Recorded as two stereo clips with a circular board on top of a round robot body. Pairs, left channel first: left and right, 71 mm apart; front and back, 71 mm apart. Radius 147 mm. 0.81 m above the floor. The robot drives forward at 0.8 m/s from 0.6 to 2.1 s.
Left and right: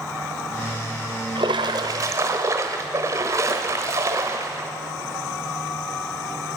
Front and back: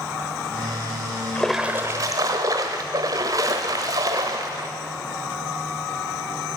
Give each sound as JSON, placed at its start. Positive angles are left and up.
{"t": 1.4, "sound": "a splash", "azimuth_deg": -70, "distance_m": 0.6}